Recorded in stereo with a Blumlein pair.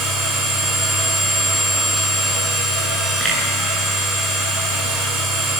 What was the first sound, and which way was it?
A machine running, 10° right.